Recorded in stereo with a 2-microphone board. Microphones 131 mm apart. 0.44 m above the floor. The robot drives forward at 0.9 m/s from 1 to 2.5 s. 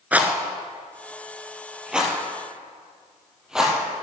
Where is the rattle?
10° right (ahead or behind), 0.9 m; by 3.8 s 5° right (ahead or behind), 2.5 m.